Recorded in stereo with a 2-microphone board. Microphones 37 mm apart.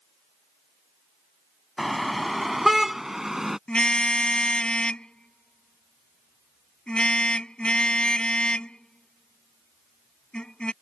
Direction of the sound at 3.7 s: 25° left (ahead or behind).